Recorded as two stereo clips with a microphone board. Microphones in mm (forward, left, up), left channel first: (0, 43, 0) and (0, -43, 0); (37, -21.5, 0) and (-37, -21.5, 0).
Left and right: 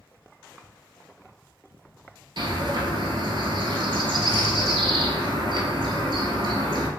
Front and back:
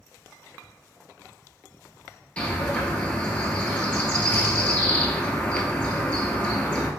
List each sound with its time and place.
2.4 s a bird: 75° right, 0.7 m